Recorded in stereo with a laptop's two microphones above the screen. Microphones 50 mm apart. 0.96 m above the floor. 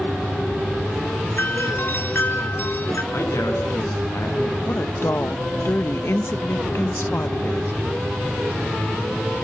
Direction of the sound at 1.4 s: 50° left (ahead or behind).